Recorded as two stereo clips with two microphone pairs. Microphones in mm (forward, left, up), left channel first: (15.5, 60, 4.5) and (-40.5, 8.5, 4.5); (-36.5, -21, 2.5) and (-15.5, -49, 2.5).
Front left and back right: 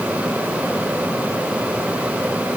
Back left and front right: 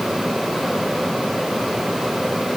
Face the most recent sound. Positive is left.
No sound to turn to.